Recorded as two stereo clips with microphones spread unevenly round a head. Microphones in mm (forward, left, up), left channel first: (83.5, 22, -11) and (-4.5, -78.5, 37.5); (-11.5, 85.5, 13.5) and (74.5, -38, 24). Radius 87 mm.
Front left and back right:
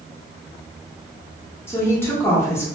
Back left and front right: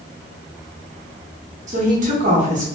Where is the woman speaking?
35° right, 1.0 m.